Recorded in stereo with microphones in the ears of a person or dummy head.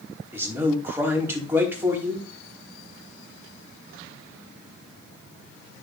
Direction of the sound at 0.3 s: 10° right (ahead or behind).